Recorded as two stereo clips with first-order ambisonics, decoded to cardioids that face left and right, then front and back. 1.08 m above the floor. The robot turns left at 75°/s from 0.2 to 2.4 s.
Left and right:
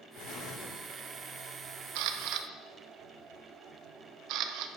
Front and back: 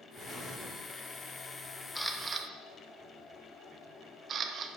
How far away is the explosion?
About 2 m.